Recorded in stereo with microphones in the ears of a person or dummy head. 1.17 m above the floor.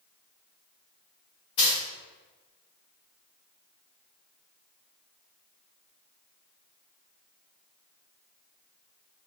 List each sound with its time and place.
1.6 s a dropped coin: 25° left (ahead or behind), 1.7 m